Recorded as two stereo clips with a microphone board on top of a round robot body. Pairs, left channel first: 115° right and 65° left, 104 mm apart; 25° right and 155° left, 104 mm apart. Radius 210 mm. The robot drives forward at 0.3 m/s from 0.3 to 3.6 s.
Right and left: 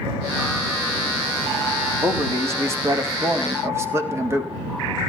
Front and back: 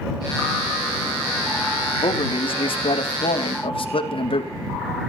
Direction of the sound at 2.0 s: 5° left.